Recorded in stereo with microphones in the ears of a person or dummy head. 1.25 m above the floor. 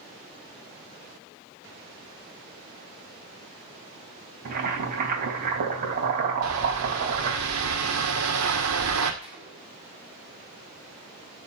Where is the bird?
75° right (ahead or behind), 2 m.